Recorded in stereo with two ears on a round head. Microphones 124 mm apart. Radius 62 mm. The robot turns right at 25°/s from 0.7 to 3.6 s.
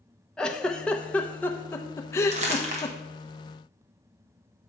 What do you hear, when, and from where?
0.4 s a giggle: 5° left (ahead or behind), 0.7 m; by 3.0 s 25° left (ahead or behind), 0.7 m
2.3 s crumpling: 50° right (ahead or behind), 1.3 m